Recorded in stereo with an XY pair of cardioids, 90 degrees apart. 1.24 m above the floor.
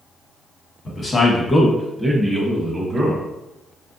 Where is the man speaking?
35° left, 1.3 m; by 3.2 s 40° right, 1.1 m.